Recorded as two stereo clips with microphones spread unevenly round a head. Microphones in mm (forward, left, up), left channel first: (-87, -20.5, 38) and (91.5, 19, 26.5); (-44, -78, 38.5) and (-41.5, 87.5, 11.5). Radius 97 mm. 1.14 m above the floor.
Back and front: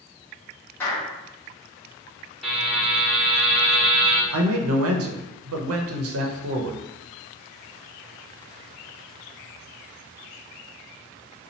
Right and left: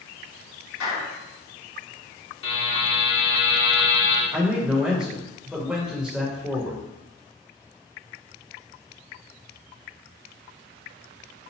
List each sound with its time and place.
0.8 s a clap: 90° right, 1.8 m
2.4 s a buzzer: 75° right, 1.4 m
4.3 s a man speaking: 5° left, 0.7 m